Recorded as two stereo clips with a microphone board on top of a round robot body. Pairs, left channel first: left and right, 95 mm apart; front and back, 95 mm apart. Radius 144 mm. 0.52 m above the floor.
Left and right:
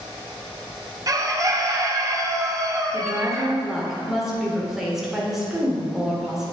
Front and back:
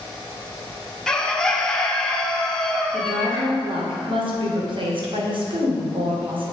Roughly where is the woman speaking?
Behind.